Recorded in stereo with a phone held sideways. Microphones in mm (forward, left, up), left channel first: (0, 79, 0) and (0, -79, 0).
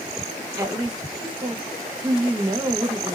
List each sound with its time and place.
0.6 s a woman speaking: 25° right (ahead or behind), 1.2 m